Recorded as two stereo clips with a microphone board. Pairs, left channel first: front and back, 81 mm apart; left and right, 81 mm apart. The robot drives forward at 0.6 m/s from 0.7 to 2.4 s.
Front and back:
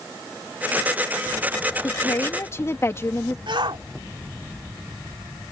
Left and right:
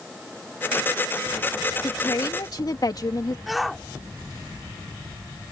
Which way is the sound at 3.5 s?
Straight behind.